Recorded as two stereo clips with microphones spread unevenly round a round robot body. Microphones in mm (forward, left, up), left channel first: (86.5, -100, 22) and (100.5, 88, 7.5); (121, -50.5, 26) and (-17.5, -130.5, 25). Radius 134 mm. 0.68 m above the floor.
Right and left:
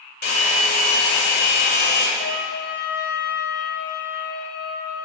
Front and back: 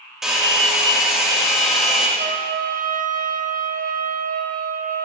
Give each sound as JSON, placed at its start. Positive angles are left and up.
{"t": 0.2, "sound": "a hair dryer", "azimuth_deg": -60, "distance_m": 2.0}
{"t": 2.2, "sound": "a trumpet", "azimuth_deg": -125, "distance_m": 0.5}